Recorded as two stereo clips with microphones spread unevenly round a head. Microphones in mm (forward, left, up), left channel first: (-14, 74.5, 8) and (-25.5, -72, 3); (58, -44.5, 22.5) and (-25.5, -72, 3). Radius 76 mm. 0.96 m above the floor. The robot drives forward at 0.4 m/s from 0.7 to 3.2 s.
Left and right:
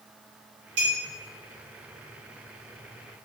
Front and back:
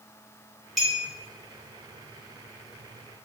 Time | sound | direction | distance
0.8 | a clink | 70° right | 1.6 m